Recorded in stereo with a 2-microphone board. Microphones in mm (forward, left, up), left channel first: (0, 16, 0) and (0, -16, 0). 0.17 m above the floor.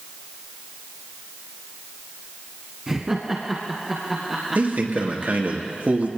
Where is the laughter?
15° right (ahead or behind), 1.2 m; by 5.5 s 10° right (ahead or behind), 5 m.